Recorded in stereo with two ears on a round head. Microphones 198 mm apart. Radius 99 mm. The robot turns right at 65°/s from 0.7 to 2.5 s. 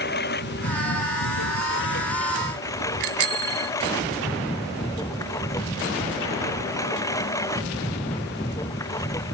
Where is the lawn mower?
50° left; by 9.3 s 165° left.